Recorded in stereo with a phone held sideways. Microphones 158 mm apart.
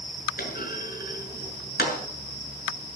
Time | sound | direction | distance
0.4 | a clunk | 75° left (ahead or behind) | 6.5 m